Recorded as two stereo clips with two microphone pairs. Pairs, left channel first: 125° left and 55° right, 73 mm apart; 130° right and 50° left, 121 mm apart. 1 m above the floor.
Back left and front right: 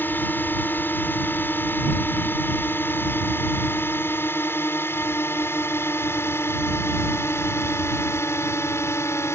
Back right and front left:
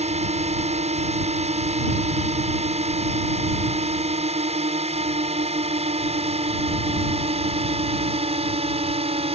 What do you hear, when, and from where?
0.0 s a drone: 65° left; by 9.4 s 75° left